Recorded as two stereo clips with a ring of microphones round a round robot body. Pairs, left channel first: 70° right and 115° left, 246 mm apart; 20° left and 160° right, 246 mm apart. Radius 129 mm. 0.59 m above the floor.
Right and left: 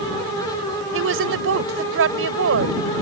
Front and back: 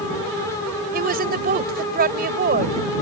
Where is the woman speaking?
150° left.